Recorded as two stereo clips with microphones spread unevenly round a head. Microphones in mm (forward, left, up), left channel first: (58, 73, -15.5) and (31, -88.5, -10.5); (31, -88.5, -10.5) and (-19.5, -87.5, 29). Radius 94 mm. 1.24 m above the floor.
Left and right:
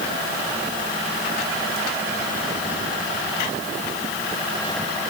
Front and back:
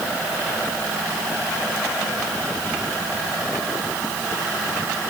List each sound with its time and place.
Only background noise.